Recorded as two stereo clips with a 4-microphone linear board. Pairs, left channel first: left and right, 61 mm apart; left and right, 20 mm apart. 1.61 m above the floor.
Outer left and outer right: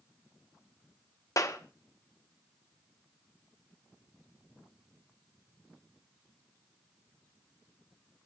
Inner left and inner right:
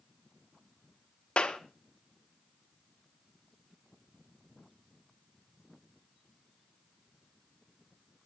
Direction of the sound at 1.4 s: 60° left (ahead or behind).